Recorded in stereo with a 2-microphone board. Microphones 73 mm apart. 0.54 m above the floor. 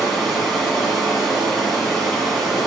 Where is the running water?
Centre (ahead or behind), 2 m.